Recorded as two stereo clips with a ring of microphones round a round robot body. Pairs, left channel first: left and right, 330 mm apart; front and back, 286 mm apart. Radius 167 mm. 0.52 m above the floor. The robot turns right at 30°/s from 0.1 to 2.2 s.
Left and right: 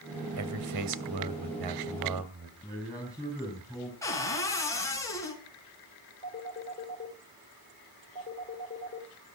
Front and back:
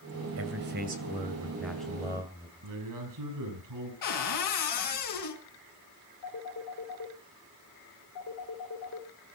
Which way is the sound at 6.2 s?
20° left.